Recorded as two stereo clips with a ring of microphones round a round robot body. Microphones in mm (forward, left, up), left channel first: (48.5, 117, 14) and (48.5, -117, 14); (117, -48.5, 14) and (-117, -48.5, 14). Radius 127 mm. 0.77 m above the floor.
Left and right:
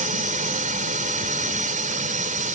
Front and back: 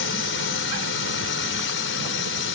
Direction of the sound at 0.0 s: 35° right.